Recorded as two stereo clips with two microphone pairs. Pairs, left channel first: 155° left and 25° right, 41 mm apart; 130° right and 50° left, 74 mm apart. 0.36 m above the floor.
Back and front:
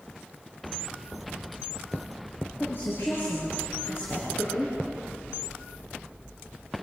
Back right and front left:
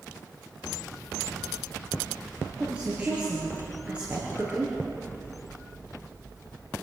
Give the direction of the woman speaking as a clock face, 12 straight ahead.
8 o'clock.